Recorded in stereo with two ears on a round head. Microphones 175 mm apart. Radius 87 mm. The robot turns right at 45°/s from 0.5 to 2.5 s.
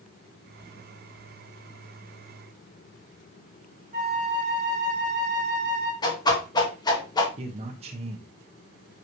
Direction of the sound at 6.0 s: 20° left (ahead or behind).